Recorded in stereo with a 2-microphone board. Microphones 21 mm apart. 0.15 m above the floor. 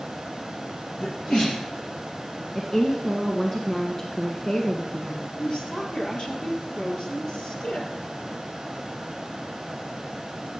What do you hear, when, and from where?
1.0 s a sneeze: 50° left (ahead or behind), 4 m
2.5 s a woman speaking: 25° left (ahead or behind), 1.6 m
5.4 s a woman speaking: 50° left (ahead or behind), 3.5 m